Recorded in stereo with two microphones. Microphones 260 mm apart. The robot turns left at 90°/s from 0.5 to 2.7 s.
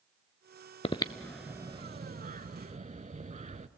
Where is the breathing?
25° left (ahead or behind), 0.5 m; by 3.7 s 30° right (ahead or behind), 0.5 m.